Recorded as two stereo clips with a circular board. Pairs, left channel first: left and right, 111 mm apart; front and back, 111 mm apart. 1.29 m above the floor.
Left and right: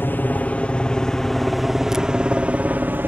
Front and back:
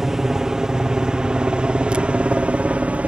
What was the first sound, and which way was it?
A helicopter, 100° left.